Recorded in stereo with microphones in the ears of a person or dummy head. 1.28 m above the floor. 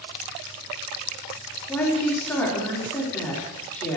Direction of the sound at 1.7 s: 10° left (ahead or behind).